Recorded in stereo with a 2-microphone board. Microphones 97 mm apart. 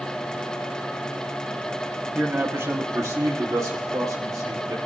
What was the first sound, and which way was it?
A man speaking, 15° right (ahead or behind).